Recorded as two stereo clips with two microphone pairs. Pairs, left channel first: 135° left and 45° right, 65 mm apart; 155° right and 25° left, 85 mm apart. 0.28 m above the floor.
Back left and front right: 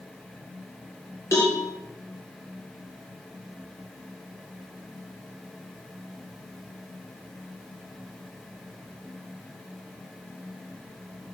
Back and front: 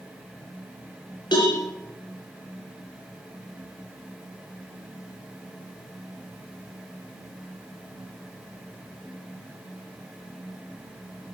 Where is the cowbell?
Straight behind, 6 m.